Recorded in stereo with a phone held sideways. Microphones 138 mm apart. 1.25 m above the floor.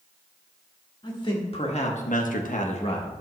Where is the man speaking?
35° left (ahead or behind), 2.5 m.